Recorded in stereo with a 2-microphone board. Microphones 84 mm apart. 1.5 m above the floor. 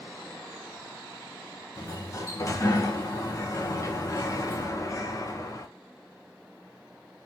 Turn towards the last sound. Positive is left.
turn(degrees=35)  # may be behind; listen again after turning